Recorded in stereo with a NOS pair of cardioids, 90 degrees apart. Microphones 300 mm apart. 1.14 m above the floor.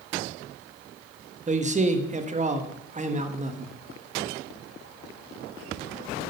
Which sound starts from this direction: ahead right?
A man speaking, at 1.5 s.